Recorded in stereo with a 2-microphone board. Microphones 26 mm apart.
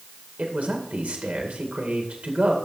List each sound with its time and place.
0.4 s a man speaking: 70° right (ahead or behind), 2 m